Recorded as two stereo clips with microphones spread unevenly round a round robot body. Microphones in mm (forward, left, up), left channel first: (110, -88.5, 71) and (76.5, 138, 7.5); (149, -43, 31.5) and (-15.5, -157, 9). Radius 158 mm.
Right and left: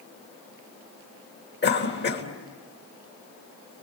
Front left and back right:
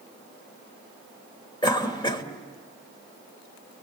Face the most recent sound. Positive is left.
turn(degrees=-35)